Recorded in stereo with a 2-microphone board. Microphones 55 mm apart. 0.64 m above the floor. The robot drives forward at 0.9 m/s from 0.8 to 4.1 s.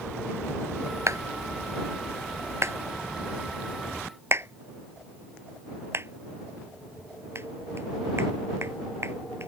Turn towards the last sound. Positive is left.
turn(degrees=-50)  # may be behind; listen again after turning